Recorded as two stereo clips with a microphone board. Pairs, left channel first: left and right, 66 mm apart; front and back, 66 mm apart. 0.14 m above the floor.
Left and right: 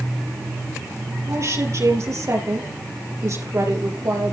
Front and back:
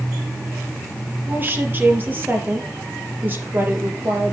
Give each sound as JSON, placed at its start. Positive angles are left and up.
{"t": 1.3, "sound": "a woman speaking", "azimuth_deg": -125, "distance_m": 3.0}